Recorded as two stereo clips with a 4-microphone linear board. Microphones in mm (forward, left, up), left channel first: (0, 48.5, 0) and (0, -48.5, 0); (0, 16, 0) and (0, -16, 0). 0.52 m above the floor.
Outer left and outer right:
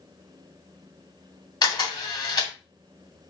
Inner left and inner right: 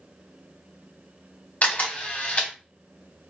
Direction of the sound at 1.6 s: 45° left (ahead or behind).